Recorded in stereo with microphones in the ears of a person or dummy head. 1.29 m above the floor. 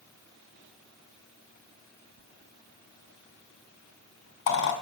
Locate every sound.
2.2 s a squeak: 65° left (ahead or behind), 2.5 m